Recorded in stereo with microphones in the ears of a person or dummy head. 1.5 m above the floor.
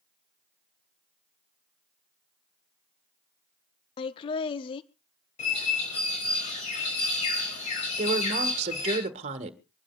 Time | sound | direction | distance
4.0 | laughter | 35° left (ahead or behind) | 0.6 m
5.4 | a bird | 45° left (ahead or behind) | 5 m
8.0 | a woman speaking | 40° right (ahead or behind) | 1.8 m